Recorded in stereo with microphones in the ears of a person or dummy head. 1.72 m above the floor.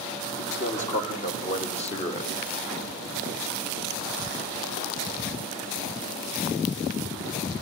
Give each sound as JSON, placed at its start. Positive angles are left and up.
{"t": 0.4, "sound": "a man speaking", "side_deg": 40, "distance_m": 4.0}